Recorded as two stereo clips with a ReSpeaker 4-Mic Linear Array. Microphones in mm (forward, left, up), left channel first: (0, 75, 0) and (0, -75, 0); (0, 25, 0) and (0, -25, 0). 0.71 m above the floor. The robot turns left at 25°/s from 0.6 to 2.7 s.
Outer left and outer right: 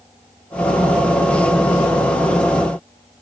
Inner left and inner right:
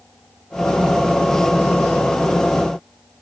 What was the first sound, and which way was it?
Only background noise.